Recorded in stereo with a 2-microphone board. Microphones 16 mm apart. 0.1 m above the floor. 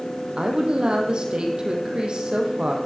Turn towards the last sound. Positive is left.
turn(degrees=-70)  # may be behind; listen again after turning